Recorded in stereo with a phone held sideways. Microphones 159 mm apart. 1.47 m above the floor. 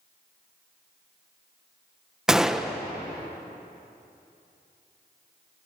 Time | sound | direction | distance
2.3 | a gunshot | 5° right (ahead or behind) | 1.1 m